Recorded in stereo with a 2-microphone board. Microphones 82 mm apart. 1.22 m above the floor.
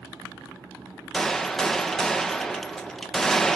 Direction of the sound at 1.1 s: 5° left (ahead or behind).